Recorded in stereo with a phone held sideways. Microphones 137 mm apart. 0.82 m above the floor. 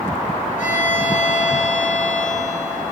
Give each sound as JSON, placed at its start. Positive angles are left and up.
{"t": 0.6, "sound": "a violin", "side_deg": 70, "distance_m": 5.0}